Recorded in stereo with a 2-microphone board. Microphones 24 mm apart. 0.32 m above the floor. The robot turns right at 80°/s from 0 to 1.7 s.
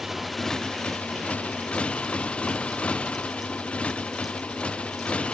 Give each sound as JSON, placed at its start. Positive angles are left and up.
{"t": 0.0, "sound": "a motorcycle", "azimuth_deg": -15}